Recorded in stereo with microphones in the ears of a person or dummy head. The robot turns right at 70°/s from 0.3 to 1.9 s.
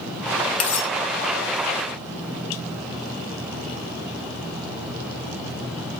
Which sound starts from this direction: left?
Cutlery clinking, at 0.6 s.